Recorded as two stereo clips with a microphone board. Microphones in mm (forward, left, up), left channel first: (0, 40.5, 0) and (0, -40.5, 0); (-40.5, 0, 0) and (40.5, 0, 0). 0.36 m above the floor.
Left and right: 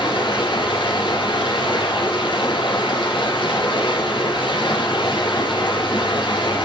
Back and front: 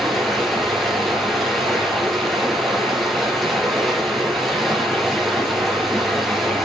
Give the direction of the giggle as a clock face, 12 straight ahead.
No giggle in this recording.